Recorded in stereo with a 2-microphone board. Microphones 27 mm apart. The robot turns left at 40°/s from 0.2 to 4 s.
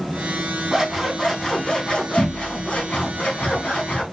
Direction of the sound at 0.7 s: 170° right.